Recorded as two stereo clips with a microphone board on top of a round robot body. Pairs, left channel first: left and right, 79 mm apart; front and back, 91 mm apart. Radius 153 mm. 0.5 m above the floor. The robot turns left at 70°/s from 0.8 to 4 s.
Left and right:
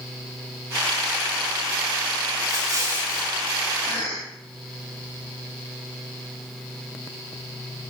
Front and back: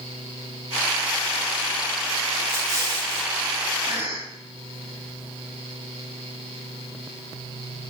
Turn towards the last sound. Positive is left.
turn(degrees=120)